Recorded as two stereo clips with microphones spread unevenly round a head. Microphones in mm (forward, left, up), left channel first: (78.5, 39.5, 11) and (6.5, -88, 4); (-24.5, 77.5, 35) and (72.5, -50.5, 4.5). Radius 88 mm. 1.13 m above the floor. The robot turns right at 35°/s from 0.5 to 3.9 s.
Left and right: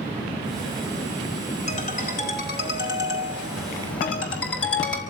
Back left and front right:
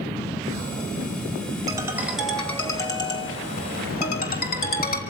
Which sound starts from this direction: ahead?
A ringtone, at 1.7 s.